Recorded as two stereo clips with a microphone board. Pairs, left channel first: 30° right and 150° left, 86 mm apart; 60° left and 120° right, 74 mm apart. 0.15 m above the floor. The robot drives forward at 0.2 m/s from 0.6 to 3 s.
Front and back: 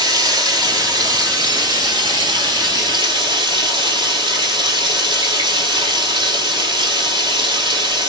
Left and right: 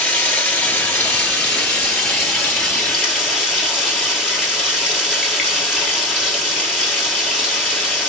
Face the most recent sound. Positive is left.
turn(degrees=145)